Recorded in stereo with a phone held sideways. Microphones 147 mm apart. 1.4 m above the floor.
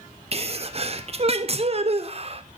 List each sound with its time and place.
0.3 s a sneeze: 45° right (ahead or behind), 0.5 m